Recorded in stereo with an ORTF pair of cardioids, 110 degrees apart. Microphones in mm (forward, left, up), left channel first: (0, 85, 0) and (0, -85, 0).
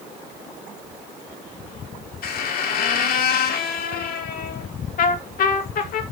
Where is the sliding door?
I don't hear a sliding door.